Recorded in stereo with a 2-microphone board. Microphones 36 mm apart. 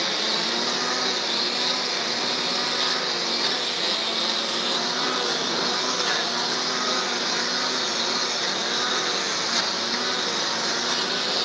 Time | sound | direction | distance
0.0 | a lawn mower | centre (ahead or behind) | ?